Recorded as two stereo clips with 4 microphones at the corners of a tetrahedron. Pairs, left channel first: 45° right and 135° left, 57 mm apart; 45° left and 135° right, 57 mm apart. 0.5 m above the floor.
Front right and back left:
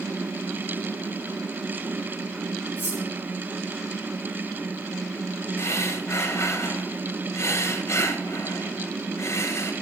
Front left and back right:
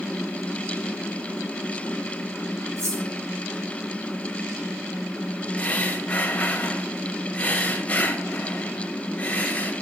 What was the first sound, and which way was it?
Cutlery clinking, 100° right.